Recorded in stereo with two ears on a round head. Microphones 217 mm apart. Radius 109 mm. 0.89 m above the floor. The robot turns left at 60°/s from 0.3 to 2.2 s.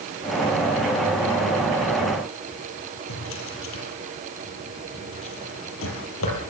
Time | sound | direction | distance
3.1 | a drawer | 60° left (ahead or behind) | 7 m